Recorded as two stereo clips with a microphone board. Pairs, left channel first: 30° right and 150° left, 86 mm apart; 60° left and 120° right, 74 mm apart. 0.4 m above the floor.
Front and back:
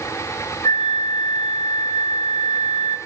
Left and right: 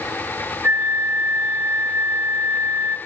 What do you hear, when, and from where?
0.6 s a flute: 65° right, 1.2 m